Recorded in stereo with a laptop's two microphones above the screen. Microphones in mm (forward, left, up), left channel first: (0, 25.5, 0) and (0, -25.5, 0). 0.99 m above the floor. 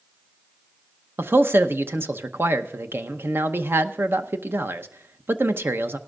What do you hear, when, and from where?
1.2 s a man speaking: 45° right (ahead or behind), 0.8 m